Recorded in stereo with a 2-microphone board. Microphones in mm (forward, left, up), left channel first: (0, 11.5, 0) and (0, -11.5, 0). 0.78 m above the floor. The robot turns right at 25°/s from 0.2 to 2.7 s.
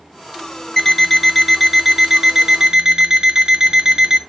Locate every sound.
0.8 s an alarm clock: 170° left, 0.8 m; by 4.2 s 145° right, 0.8 m